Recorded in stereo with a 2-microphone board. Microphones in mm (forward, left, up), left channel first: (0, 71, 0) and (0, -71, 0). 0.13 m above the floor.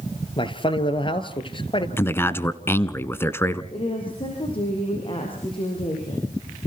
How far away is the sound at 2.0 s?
About 1.2 m.